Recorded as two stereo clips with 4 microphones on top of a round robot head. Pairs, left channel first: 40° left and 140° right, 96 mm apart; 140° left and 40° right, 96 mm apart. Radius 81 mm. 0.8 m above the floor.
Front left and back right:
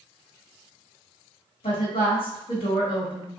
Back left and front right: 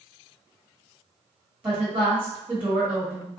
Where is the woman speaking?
30° left, 1.7 m.